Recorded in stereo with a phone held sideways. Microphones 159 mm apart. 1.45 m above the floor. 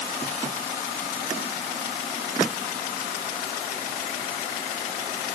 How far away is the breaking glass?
No breaking glass in this recording.